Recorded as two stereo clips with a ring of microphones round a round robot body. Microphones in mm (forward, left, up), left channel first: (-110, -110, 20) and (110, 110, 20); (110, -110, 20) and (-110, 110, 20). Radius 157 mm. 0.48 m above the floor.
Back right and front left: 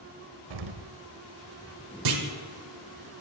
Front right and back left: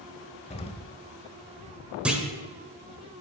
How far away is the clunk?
About 1.2 m.